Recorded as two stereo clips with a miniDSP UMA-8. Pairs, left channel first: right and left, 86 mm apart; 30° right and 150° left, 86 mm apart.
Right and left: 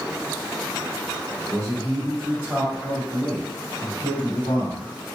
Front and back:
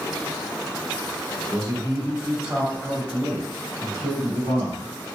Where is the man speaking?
80° left, 1.8 m; by 4.9 s 80° right, 1.8 m.